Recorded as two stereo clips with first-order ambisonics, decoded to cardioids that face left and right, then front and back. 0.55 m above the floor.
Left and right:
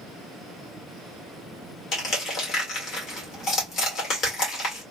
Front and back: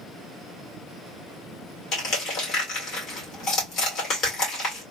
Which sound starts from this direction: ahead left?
Crushing, at 1.9 s.